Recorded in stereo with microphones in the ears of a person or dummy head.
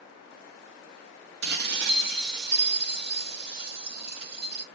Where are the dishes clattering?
60° right (ahead or behind), 1.6 m.